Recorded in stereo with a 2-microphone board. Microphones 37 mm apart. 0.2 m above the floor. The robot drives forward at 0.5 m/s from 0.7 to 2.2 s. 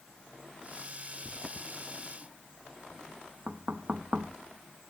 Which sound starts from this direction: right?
Knocking, at 3.5 s.